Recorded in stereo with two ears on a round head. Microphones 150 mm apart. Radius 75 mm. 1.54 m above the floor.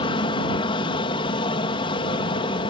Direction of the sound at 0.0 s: 30° left (ahead or behind).